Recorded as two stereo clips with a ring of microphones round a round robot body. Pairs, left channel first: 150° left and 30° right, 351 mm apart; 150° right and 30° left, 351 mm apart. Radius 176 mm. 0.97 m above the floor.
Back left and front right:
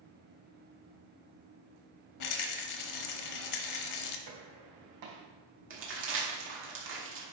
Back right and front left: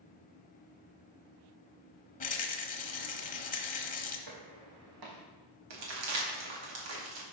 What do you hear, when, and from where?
2.2 s a rattle: 150° left, 1.0 m
4.3 s footsteps: 5° left, 3 m
5.7 s crumpling: 25° left, 2.5 m